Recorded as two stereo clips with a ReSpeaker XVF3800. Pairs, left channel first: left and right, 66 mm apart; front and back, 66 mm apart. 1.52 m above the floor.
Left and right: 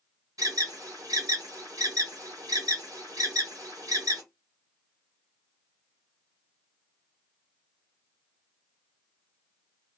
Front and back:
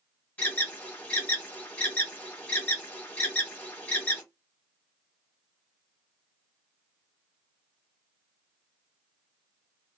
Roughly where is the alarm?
Right.